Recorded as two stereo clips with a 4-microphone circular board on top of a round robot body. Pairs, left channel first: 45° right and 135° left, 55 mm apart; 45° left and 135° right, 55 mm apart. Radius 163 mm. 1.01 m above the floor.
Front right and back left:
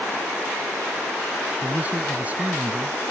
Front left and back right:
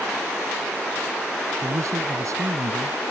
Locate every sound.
1.6 s a man speaking: 160° right